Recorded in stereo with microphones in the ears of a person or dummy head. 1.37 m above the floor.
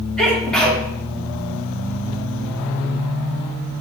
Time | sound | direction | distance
0.2 | a sneeze | 5° left (ahead or behind) | 3 m